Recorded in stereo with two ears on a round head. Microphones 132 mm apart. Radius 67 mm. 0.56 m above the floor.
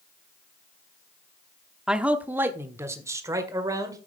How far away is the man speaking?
About 0.9 m.